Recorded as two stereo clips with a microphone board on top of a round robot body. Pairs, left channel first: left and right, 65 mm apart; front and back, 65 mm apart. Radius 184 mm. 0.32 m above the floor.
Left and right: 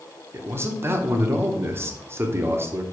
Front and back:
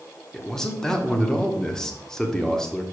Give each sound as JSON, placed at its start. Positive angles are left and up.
{"t": 0.3, "sound": "a man speaking", "azimuth_deg": -75, "distance_m": 1.6}